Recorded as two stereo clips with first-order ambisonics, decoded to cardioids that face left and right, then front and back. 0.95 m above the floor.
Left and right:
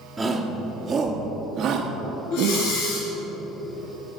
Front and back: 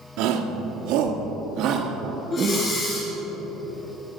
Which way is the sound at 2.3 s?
60° left.